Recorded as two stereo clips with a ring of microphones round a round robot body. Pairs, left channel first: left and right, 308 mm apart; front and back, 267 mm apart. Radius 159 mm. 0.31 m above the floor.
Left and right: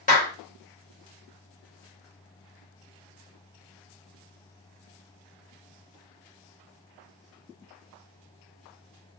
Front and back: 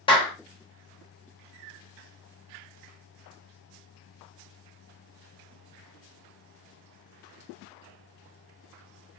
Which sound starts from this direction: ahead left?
A clap, at 0.1 s.